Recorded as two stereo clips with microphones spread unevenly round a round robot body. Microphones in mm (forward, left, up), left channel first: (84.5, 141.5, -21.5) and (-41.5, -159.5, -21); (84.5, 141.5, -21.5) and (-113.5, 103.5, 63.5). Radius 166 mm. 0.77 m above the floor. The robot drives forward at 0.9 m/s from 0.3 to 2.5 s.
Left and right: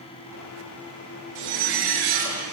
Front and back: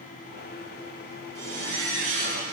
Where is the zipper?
105° right, 6.5 m; by 2.4 s 115° right, 7 m.